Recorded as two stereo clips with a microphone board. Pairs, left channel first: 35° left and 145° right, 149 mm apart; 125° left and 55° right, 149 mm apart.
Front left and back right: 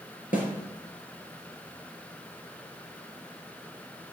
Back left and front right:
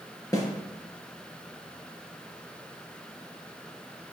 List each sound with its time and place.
0.3 s a snare drum: 60° left, 3.5 m